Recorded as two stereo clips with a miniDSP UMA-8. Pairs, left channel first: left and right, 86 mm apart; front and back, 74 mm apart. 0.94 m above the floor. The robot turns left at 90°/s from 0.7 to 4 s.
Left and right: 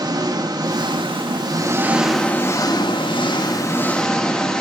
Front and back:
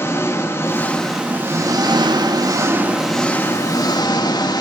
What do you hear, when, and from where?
0.0 s an engine running: 55° right, 1.2 m; by 4.6 s 10° left, 1.2 m